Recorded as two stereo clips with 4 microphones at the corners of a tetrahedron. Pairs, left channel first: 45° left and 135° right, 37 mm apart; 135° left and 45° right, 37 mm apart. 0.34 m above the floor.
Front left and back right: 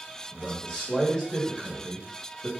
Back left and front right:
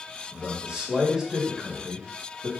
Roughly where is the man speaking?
Ahead.